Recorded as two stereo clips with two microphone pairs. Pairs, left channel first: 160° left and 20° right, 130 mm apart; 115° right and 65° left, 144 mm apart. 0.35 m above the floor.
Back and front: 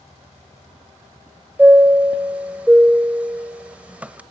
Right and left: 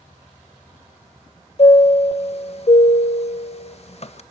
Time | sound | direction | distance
1.6 | a chime | 95° right | 1.2 m